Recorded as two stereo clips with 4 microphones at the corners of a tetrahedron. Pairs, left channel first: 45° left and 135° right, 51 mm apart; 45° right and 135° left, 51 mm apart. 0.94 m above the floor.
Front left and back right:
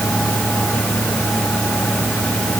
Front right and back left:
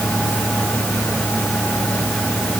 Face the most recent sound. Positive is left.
No sound to turn to.